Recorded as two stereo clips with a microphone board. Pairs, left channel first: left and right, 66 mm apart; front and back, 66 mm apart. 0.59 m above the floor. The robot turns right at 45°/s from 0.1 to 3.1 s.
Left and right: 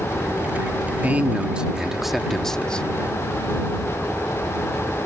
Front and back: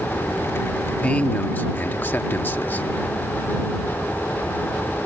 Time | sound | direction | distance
1.0 | a man speaking | 50° right | ?